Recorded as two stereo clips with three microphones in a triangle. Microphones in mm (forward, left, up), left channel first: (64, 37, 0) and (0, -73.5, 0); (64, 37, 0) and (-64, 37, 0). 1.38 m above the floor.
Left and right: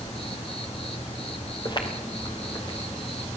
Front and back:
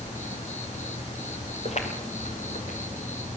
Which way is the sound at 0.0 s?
20° left.